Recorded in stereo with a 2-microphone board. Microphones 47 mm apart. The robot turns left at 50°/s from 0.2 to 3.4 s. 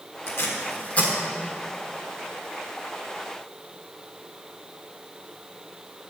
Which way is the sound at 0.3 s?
65° left (ahead or behind).